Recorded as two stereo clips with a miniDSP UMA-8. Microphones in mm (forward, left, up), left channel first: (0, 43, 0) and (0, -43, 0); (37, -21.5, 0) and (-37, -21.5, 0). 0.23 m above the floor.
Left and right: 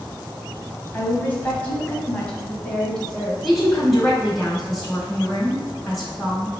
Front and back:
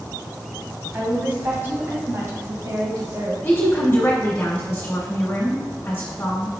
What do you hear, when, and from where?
0.9 s a woman speaking: 130° left, 1.2 m; by 3.3 s 175° left, 1.8 m
3.4 s a woman speaking: 5° left, 1.2 m